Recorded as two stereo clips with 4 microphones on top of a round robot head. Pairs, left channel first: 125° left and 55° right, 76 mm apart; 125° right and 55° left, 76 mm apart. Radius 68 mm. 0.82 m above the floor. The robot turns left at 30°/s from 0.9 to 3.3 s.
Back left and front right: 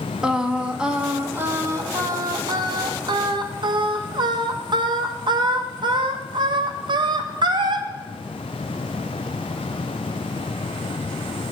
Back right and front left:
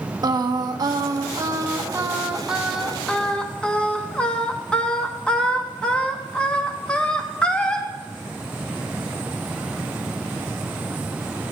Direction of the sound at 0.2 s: 25° left.